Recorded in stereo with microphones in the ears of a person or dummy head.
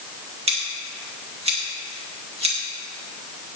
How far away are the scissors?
About 2.5 m.